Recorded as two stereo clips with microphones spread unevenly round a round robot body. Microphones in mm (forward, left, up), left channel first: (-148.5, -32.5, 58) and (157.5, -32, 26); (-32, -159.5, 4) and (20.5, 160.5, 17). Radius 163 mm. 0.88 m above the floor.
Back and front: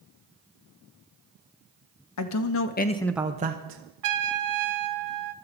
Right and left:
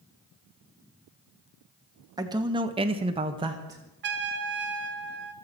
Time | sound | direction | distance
2.2 | a man speaking | 160° left | 1.4 m
4.0 | a trumpet | 20° left | 1.4 m